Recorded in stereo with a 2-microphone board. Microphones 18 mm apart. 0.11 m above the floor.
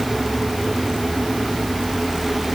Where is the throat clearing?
I don't hear throat clearing.